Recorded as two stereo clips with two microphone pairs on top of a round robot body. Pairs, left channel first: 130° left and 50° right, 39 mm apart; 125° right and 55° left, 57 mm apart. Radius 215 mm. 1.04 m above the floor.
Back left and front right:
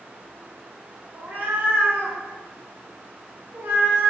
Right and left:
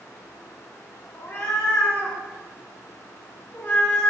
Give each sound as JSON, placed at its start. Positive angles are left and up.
{"t": 1.1, "sound": "a cat meowing", "azimuth_deg": -90, "distance_m": 3.5}